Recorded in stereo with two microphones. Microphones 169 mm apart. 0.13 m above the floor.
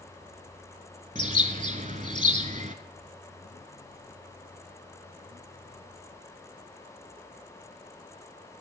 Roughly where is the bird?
Right.